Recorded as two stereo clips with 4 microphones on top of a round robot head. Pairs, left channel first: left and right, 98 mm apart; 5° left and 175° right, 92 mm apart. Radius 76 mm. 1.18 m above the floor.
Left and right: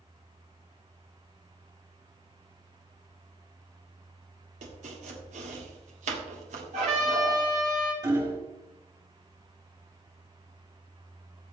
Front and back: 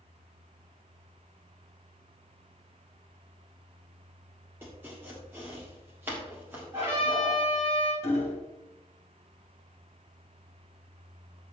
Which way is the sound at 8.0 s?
40° right.